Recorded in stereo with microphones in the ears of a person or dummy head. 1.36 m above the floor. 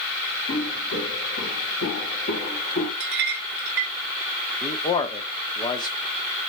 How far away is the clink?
About 0.6 m.